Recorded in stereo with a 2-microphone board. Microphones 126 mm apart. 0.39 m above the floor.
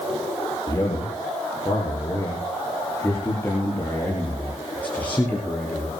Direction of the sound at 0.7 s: 25° left (ahead or behind).